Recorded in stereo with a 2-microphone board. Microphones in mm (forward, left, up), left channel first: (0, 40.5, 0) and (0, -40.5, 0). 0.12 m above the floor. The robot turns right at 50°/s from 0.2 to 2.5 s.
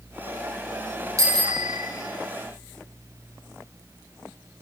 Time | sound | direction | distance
1.2 | a bicycle bell | 130° right | 2.5 m